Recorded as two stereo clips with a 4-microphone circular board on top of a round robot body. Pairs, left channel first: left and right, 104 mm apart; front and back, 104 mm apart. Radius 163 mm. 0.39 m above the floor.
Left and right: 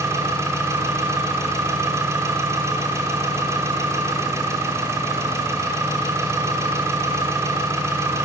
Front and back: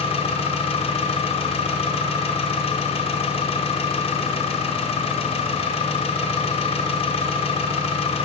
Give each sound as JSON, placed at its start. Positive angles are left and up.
{"t": 0.0, "sound": "an engine running", "azimuth_deg": -25, "distance_m": 1.1}